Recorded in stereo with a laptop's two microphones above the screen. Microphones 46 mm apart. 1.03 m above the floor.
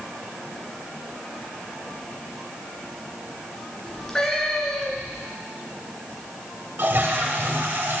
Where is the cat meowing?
15° left (ahead or behind), 2 m.